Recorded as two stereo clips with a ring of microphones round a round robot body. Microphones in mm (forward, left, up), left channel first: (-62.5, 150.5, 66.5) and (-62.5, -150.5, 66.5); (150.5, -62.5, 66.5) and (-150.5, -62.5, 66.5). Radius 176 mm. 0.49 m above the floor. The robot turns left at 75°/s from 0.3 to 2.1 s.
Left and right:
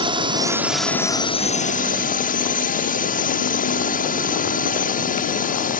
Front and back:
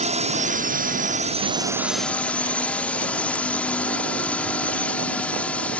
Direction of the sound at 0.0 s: 145° right.